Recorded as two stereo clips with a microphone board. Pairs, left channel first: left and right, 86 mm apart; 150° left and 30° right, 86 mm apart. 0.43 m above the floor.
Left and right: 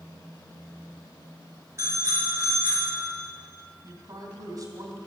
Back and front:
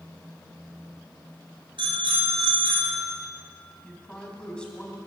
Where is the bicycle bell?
35° right, 5 m.